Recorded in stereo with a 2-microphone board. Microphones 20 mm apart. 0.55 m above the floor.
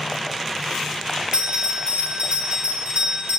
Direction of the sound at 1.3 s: 55° right (ahead or behind).